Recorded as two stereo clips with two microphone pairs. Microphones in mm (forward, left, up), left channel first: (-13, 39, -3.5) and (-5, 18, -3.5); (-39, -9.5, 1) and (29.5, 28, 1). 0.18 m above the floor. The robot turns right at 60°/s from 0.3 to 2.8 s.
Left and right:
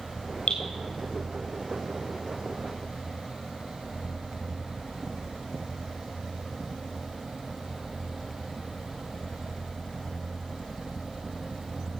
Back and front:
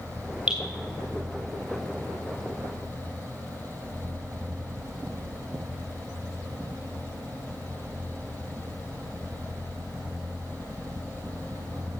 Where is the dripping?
110° left, 4.5 m; by 0.6 s 115° left, 4.5 m.